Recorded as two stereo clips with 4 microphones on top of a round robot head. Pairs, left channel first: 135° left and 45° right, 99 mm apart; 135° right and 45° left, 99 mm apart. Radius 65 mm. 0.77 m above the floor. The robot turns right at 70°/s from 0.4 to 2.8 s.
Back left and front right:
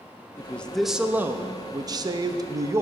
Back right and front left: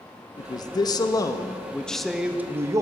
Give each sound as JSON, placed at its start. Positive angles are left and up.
{"t": 0.4, "sound": "a man speaking", "azimuth_deg": -160, "distance_m": 0.6}